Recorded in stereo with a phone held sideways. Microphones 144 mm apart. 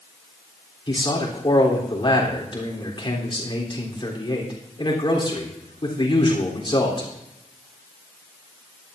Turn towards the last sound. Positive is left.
turn(degrees=35)  # may be behind; listen again after turning